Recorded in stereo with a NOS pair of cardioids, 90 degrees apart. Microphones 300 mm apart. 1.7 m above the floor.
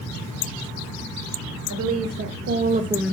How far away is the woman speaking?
About 1.5 m.